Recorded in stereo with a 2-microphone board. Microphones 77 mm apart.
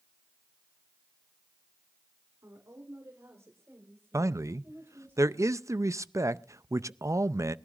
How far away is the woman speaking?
About 3 m.